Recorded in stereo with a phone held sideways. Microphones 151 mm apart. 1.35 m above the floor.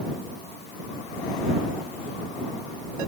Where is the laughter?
I don't hear laughter.